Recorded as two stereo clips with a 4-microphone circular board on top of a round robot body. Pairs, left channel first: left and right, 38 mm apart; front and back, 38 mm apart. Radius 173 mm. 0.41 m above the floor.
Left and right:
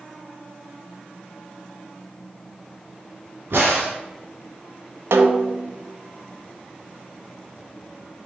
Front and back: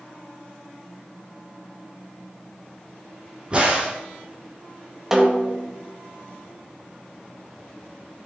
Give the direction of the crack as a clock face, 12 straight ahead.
4 o'clock.